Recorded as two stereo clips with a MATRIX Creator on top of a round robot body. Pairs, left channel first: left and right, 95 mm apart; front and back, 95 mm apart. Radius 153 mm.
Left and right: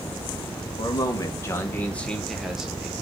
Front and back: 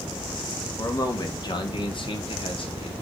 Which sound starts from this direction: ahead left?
A man speaking, at 0.8 s.